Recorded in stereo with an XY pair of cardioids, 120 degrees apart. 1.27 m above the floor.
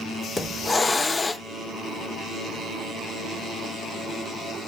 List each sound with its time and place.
0.4 s a hiss: 25° left, 0.5 m